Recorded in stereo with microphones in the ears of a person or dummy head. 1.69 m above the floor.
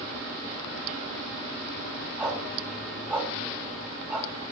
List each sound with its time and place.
2.2 s a dog barking: 10° right (ahead or behind), 5.5 m